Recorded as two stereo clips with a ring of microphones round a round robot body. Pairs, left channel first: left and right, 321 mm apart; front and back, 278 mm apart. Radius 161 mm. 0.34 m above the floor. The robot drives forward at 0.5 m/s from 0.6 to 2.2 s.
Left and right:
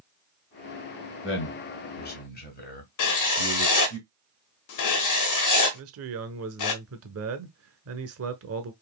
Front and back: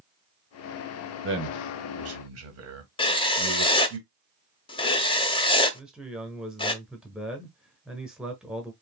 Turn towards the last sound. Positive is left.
turn(degrees=-95)